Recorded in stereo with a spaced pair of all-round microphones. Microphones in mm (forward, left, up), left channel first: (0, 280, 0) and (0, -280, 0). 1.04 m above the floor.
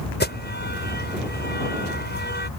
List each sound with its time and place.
0.2 s an alarm: 15° left (ahead or behind)